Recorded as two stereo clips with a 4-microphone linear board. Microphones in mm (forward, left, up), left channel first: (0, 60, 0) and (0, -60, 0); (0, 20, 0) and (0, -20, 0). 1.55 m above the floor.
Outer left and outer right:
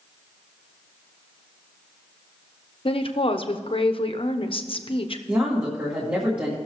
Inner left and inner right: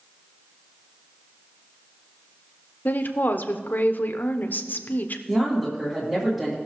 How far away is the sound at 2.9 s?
About 0.8 m.